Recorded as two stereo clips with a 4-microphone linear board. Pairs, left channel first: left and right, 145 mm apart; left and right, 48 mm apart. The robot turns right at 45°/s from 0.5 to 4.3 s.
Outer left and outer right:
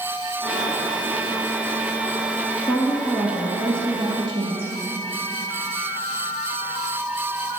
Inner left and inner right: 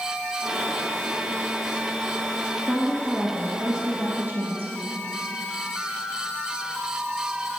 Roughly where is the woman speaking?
Behind left.